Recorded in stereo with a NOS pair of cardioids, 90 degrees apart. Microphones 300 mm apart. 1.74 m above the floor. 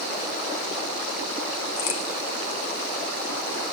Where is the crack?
65° left, 2.5 m.